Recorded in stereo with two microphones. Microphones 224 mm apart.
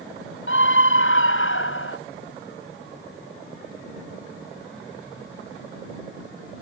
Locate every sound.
0.5 s a scream: 65° left (ahead or behind); by 2.0 s 70° left (ahead or behind)